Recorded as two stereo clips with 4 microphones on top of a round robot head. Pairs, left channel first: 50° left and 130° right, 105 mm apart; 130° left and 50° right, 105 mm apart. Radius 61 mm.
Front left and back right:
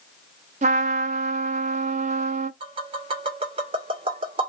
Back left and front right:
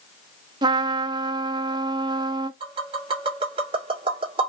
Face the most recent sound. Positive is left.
turn(degrees=-90)